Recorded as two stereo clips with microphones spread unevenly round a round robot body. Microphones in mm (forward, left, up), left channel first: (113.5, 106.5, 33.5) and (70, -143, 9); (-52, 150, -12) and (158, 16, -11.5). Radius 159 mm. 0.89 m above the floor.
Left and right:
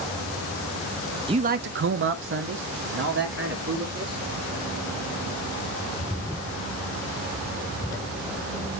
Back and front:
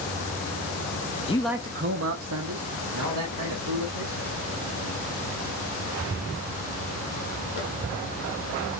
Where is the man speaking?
155° right, 0.6 m; by 4.2 s 55° right, 3 m.